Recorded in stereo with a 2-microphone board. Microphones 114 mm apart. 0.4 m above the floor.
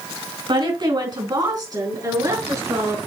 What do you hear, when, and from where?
0.5 s a woman speaking: 45° right (ahead or behind), 3.5 m; by 3.0 s 30° right (ahead or behind), 4.5 m